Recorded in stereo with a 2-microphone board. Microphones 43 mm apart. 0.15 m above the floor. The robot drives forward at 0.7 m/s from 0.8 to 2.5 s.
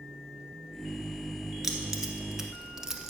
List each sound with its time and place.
1.6 s keys jangling: 5° right (ahead or behind), 1.5 m; by 3.1 s 10° right (ahead or behind), 1.1 m